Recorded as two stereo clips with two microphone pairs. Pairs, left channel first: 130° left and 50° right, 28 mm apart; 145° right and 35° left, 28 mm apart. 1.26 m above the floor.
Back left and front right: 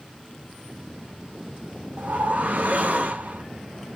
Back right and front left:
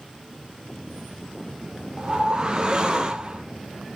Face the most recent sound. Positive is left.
turn(degrees=-25)